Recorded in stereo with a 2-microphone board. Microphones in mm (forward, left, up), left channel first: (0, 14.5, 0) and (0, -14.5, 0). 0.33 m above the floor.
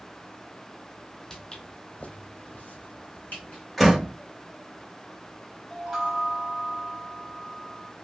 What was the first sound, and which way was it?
Footsteps, 15° left (ahead or behind).